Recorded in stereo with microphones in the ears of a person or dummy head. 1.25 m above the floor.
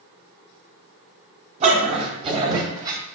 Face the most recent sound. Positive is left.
turn(degrees=-20)  # may be behind; listen again after turning